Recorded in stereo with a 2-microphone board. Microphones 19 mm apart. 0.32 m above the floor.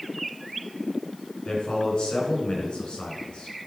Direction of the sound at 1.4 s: 60° left (ahead or behind).